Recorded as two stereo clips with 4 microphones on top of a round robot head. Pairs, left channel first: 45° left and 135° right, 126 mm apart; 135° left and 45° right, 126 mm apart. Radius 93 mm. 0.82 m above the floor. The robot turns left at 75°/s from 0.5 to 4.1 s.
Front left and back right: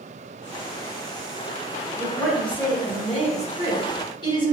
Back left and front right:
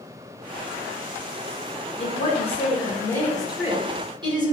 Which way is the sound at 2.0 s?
155° left.